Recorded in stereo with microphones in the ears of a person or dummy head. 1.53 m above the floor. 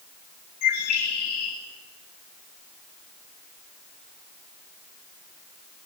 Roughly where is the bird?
Left.